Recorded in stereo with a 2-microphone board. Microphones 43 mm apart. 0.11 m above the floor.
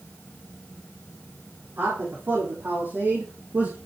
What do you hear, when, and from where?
1.8 s a man speaking: 65° right (ahead or behind), 4 m; by 3.8 s 60° right (ahead or behind), 3 m